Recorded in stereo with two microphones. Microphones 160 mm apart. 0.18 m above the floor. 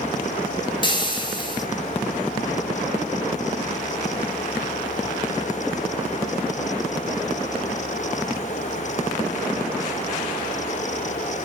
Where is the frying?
30° left (ahead or behind), 0.6 m.